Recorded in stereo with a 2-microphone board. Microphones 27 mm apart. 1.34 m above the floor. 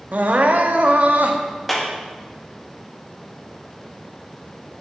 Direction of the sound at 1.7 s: 5° left (ahead or behind).